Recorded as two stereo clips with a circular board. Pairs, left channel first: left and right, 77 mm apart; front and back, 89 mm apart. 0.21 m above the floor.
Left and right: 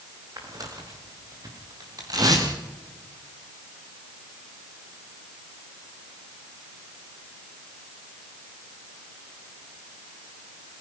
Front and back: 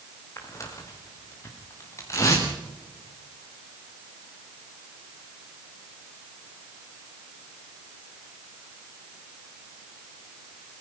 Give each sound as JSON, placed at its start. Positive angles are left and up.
{"t": 0.4, "sound": "tearing paper", "azimuth_deg": -55, "distance_m": 7.0}